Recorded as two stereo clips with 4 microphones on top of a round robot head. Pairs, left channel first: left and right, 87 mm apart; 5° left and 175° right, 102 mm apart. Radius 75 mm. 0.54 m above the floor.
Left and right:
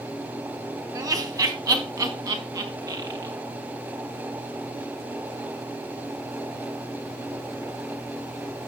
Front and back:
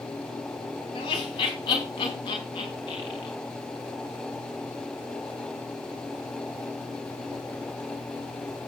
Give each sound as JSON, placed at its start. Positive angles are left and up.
{"t": 0.9, "sound": "laughter", "azimuth_deg": -45, "distance_m": 3.5}